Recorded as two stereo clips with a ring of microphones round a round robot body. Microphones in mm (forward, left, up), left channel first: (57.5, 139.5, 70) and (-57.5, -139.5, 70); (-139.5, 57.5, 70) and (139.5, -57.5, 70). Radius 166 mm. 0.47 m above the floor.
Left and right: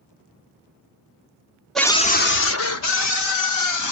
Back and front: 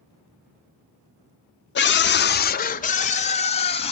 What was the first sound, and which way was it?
A scream, 155° left.